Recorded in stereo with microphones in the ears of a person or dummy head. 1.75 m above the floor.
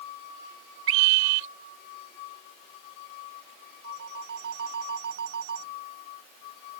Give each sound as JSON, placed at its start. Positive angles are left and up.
{"t": 0.9, "sound": "a scream", "side_deg": -75}
{"t": 3.8, "sound": "a phone ringing", "side_deg": -65}